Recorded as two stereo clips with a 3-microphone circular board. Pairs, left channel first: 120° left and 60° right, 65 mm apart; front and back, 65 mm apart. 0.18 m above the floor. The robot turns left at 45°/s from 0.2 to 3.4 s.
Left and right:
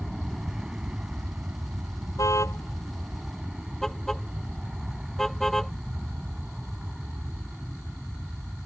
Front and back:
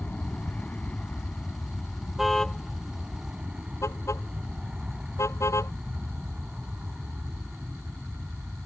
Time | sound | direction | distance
0.0 | an aircraft | 15° left | ?
2.2 | a car horn | 90° left | ?